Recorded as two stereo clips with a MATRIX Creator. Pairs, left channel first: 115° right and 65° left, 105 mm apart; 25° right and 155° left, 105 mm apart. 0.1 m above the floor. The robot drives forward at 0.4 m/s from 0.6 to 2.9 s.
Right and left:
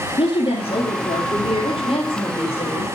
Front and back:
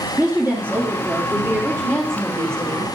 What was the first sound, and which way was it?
A woman speaking, 135° right.